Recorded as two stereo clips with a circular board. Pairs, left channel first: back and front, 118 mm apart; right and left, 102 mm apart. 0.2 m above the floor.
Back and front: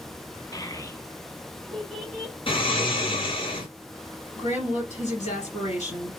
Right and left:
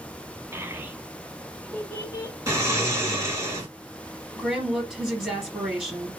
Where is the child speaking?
140° left, 0.8 m; by 2.4 s 65° right, 0.7 m.